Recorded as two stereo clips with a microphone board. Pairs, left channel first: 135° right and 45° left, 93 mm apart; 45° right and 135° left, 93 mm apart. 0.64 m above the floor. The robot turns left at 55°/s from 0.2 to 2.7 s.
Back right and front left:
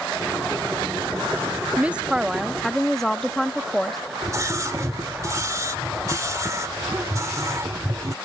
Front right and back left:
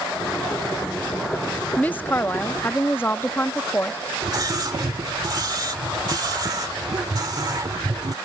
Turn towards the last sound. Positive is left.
turn(degrees=95)